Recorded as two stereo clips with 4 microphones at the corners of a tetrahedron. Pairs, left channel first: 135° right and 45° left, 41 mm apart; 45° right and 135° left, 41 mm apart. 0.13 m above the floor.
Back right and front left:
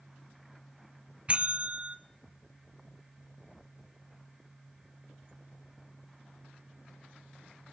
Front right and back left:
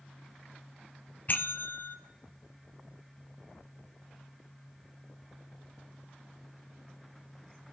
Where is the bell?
10° right, 0.6 m.